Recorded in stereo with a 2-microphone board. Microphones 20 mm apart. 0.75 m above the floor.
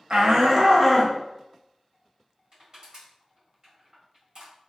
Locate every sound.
0.1 s a shout: 45° right (ahead or behind), 0.5 m; by 1.1 s 5° left (ahead or behind), 0.6 m
2.5 s crushing: 45° right (ahead or behind), 1.7 m